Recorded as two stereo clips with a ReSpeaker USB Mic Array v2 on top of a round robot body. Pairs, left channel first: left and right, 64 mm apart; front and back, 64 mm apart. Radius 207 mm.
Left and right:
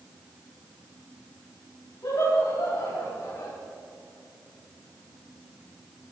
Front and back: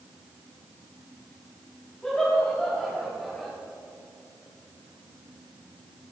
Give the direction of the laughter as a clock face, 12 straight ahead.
10 o'clock.